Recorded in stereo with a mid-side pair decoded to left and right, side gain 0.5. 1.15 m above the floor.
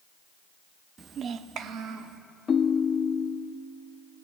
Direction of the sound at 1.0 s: 40° right.